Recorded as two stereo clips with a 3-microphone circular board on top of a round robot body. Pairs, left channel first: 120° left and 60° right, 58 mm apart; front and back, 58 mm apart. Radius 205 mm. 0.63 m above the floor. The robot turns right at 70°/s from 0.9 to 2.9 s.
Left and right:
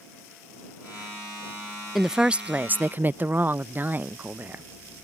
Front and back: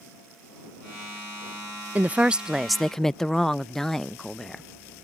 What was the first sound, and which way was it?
A woman speaking, 145° right.